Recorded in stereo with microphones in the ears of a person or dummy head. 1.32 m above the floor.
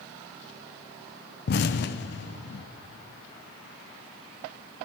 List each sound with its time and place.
1.5 s an explosion: 55° left (ahead or behind), 0.6 m